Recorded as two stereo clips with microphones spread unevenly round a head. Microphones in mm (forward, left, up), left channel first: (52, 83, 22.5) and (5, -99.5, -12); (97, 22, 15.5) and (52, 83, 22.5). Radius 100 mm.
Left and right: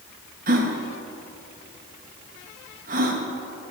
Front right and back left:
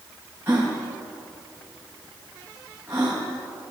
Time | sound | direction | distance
0.5 | a gasp | 155° right | 2.5 m